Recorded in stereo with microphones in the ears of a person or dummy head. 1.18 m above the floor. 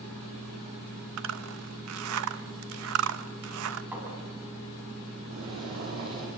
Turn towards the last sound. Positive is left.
turn(degrees=-75)  # may be behind; listen again after turning